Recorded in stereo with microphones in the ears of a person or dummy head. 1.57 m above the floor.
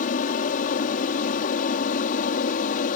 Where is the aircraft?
40° left (ahead or behind).